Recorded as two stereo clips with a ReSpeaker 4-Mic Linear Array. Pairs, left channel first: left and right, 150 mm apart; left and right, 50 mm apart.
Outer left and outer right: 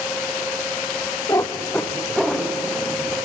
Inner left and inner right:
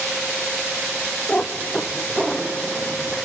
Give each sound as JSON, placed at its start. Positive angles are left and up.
{"t": 1.3, "sound": "a cat meowing", "side_deg": 25, "distance_m": 1.6}